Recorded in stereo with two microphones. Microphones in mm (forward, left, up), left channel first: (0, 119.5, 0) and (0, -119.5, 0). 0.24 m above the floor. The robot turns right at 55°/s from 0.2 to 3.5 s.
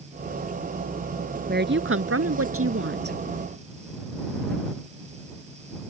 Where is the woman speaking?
140° right; by 3.2 s 45° right.